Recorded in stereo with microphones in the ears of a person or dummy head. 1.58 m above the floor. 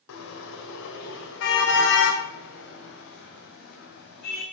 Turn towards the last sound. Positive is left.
turn(degrees=50)  # may be behind; listen again after turning